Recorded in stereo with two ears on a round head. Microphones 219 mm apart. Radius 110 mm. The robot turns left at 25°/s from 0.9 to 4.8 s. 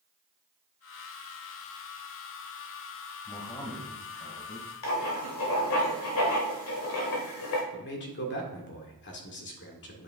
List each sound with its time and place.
3.2 s a man speaking: 165° left, 2.5 m; by 4.7 s 130° left, 2.5 m
4.8 s writing: 60° left (ahead or behind), 1.9 m
7.7 s a man speaking: 50° left (ahead or behind), 1.8 m